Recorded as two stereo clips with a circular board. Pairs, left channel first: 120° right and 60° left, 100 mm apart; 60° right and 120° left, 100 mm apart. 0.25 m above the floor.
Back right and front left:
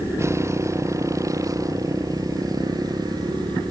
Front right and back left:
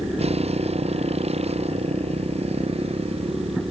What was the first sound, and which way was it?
A motorcycle, 125° left.